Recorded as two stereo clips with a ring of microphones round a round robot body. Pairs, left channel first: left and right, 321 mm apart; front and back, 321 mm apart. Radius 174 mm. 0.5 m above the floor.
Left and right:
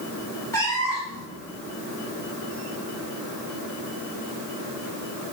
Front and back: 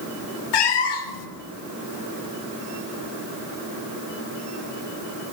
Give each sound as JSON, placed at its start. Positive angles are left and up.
{"t": 0.5, "sound": "a cat meowing", "azimuth_deg": 10, "distance_m": 0.7}